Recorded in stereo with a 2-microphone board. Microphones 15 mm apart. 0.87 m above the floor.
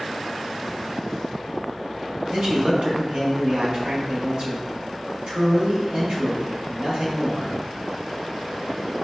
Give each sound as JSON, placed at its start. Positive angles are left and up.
{"t": 2.3, "sound": "a man speaking", "side_deg": -60, "distance_m": 0.9}